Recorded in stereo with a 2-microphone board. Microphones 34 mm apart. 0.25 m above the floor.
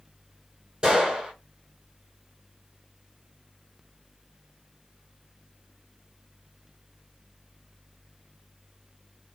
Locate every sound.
0.8 s a gunshot: 25° right (ahead or behind), 2 m